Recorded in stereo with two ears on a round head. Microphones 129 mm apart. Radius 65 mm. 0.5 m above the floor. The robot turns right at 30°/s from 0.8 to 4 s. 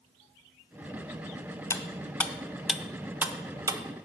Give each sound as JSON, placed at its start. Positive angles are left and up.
{"t": 1.7, "sound": "cutlery clinking", "side_deg": 20, "distance_m": 0.6}